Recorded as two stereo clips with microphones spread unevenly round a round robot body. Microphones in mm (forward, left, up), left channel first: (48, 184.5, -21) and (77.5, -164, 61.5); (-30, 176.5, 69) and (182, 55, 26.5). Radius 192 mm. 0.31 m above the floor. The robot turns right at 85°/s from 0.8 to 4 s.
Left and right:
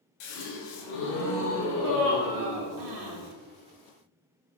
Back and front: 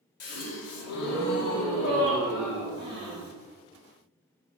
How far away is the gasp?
About 0.6 m.